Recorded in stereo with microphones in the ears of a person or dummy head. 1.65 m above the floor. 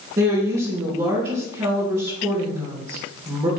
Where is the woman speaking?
25° right (ahead or behind), 3 m.